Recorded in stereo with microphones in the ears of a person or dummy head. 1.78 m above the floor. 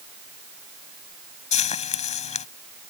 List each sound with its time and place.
1.5 s frying: 40° left (ahead or behind)